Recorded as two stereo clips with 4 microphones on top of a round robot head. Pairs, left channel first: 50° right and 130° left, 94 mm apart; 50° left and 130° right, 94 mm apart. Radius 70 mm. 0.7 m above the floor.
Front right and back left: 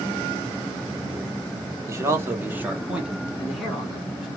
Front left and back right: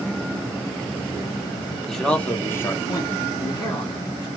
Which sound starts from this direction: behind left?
A man speaking, at 1.9 s.